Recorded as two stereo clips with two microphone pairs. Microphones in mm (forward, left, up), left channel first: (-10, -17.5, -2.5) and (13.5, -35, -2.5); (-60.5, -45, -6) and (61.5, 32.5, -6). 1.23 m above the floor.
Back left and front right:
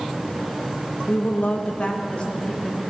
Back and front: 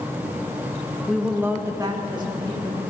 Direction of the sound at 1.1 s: 130° left.